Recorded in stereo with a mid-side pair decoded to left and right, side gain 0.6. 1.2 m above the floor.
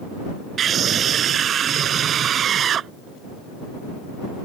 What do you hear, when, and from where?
0.6 s a scream: 45° right